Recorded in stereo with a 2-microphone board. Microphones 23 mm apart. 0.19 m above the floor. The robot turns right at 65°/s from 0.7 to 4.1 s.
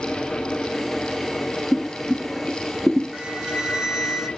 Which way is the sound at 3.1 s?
80° right.